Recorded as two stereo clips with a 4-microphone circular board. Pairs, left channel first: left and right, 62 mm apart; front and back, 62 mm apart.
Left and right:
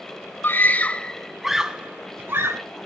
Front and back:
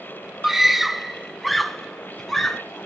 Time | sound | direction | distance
0.4 | a scream | 100° left | 1.3 m